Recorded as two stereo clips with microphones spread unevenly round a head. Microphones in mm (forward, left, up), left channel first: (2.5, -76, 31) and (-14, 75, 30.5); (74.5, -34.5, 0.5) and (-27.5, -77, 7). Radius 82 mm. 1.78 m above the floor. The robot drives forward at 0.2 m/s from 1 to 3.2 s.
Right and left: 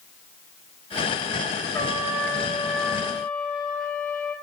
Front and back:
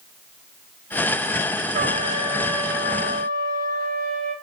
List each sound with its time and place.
1.7 s a trumpet: 155° right, 1.3 m; by 4.3 s 160° right, 1.6 m